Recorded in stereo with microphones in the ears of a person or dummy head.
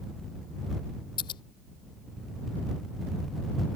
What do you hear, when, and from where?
1.2 s scissors: 25° left (ahead or behind)